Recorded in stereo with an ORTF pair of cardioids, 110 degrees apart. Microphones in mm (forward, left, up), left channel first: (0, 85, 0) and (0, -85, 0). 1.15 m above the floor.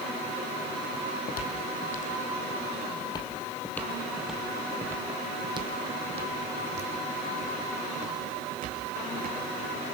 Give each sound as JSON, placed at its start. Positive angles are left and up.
{"t": 0.9, "sound": "footsteps", "azimuth_deg": 70, "distance_m": 3.5}